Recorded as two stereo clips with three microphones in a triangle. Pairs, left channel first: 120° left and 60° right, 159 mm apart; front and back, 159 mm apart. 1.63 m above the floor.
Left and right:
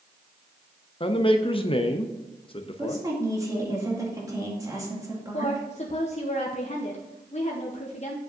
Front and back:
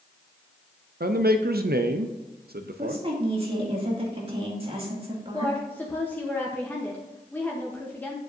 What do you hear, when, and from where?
1.0 s a man speaking: 170° left, 0.5 m
2.8 s a woman speaking: 125° right, 2.5 m
5.3 s a woman speaking: 75° left, 0.9 m